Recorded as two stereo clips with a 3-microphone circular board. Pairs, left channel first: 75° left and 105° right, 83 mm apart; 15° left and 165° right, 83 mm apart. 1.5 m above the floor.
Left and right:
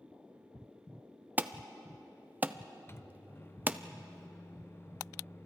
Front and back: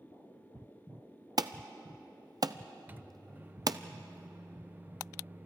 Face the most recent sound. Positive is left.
turn(degrees=130)